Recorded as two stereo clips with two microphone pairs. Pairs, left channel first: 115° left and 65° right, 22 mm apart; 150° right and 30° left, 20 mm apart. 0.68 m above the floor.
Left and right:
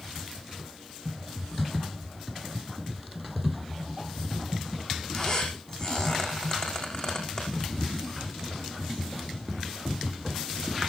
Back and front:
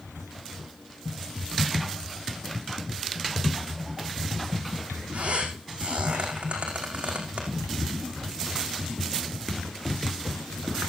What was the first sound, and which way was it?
A squeak, 60° left.